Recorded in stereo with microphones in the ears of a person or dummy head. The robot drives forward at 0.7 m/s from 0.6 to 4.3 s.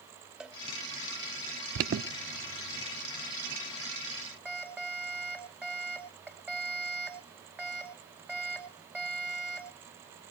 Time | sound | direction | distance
0.4 | a cowbell | centre (ahead or behind) | 0.9 m
1.8 | an alarm | 35° right (ahead or behind) | 0.6 m